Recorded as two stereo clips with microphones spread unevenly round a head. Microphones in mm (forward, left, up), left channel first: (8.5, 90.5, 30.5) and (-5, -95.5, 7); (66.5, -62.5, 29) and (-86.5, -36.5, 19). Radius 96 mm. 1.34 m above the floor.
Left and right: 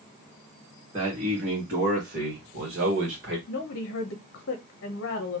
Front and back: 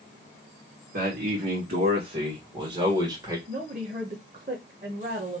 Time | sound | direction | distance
0.9 | a man speaking | 160° right | 2 m
3.5 | a woman speaking | 115° left | 0.8 m